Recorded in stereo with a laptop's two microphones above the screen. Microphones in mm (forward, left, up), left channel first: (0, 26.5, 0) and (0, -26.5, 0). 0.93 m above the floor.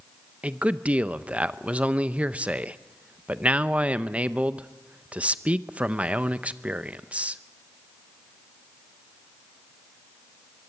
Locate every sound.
0.4 s a man speaking: 25° right (ahead or behind), 0.6 m